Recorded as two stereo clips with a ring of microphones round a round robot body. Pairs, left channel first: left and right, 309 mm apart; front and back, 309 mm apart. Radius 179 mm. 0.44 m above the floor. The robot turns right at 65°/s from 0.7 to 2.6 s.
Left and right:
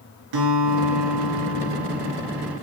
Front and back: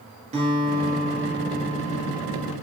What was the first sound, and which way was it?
A guitar, 110° right.